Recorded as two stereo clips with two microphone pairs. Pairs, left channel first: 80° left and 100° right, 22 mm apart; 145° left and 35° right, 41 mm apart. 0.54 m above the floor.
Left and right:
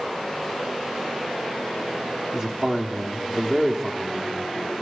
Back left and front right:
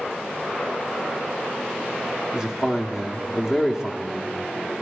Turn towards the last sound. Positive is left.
turn(degrees=-95)